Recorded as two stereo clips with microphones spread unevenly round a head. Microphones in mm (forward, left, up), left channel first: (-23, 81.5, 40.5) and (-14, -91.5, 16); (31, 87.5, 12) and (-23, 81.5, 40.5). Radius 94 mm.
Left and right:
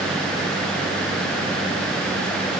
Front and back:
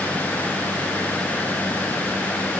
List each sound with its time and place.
Only background noise.